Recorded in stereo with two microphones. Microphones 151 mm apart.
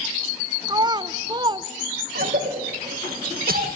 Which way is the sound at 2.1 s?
80° right.